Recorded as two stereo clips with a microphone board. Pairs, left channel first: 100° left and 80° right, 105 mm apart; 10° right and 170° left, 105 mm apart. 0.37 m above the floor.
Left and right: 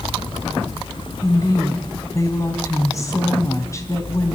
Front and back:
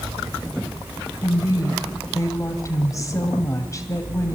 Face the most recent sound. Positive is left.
turn(degrees=45)